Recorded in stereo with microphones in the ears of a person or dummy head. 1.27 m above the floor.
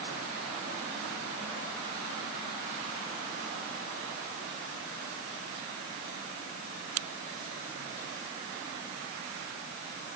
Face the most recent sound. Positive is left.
No sound to turn to.